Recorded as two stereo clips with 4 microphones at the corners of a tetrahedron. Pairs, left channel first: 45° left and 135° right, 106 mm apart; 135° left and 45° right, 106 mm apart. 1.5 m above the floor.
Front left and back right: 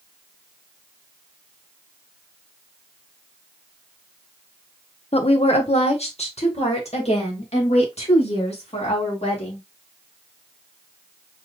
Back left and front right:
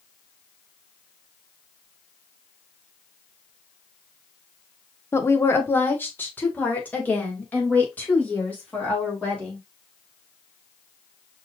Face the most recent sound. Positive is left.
turn(degrees=60)